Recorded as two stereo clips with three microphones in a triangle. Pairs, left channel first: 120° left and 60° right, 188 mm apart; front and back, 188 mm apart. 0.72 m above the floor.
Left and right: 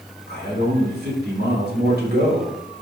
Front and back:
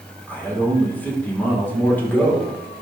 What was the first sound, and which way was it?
A man speaking, 80° right.